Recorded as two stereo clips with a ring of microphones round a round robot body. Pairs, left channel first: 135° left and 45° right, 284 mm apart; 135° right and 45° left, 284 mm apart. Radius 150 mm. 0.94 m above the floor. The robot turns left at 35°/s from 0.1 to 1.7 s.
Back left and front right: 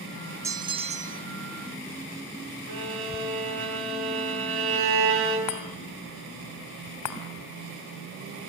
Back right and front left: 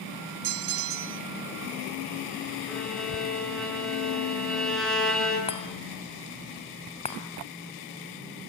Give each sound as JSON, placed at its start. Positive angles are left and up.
{"t": 0.4, "sound": "a bell", "azimuth_deg": 35, "distance_m": 0.8}
{"t": 2.7, "sound": "a violin", "azimuth_deg": -45, "distance_m": 8.5}
{"t": 5.5, "sound": "a chime", "azimuth_deg": 155, "distance_m": 2.5}